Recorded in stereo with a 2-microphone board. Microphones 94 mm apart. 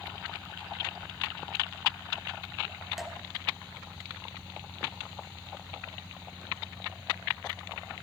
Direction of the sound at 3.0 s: 5° right (ahead or behind).